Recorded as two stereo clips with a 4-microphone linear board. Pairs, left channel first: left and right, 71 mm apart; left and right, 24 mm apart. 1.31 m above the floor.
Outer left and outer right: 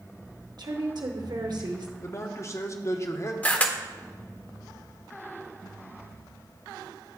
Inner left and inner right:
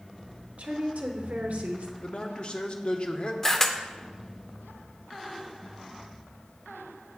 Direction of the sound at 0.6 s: 65° right (ahead or behind).